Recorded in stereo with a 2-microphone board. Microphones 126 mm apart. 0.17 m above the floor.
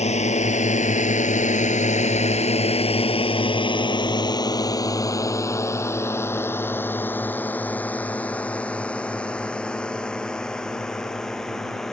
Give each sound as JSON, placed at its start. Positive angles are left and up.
{"t": 0.0, "sound": "a drone", "side_deg": 60}